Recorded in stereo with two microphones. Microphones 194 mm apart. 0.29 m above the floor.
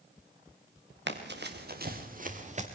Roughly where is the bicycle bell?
I don't hear a bicycle bell.